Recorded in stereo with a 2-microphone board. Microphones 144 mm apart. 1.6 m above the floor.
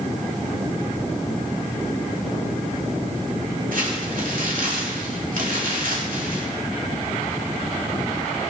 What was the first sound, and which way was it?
Crumpling, 75° right (ahead or behind).